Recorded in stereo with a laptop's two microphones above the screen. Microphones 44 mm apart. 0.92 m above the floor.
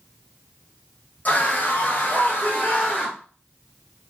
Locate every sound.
1.2 s a scream: 35° left (ahead or behind), 1.1 m